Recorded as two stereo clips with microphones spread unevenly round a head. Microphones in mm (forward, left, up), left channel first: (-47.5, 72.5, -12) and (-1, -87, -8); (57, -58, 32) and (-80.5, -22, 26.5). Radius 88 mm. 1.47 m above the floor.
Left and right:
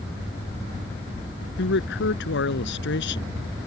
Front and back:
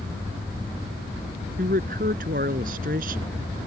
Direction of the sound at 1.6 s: 120° left.